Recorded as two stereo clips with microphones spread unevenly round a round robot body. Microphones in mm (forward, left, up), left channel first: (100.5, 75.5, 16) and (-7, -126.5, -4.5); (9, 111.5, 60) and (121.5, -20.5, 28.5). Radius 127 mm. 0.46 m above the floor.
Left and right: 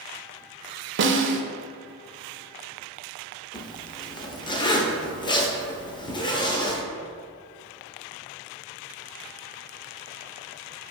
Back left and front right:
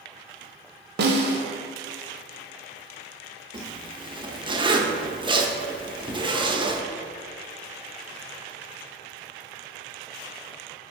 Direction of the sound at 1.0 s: 80° right.